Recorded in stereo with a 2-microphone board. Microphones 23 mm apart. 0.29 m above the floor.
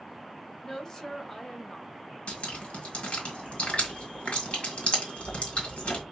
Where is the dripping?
55° left (ahead or behind), 1.7 m.